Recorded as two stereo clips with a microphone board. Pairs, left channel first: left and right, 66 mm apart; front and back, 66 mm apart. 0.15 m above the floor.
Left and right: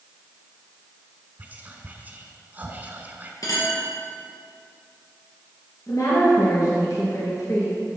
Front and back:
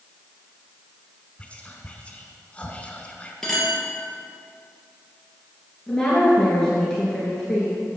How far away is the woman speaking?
About 2.5 m.